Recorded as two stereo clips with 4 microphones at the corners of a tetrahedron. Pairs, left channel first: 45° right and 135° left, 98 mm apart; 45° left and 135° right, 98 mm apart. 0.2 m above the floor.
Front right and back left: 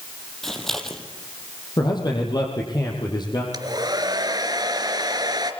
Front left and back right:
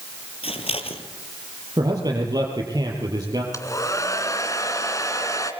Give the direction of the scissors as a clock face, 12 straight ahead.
11 o'clock.